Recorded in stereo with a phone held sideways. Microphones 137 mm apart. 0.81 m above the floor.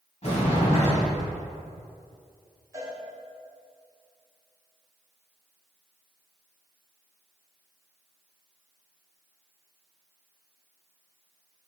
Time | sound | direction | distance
0.2 | a sliding door | 55° left (ahead or behind) | 2.5 m
2.7 | a cowbell | 25° right (ahead or behind) | 2.5 m